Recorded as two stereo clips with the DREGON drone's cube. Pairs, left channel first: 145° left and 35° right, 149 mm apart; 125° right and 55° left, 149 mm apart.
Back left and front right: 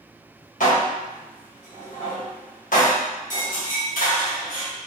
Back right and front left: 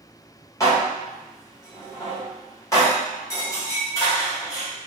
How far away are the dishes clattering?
About 1.1 m.